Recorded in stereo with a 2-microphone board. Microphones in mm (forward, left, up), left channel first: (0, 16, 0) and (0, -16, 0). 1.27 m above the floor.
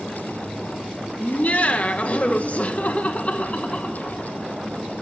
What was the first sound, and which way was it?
Laughter, 50° left (ahead or behind).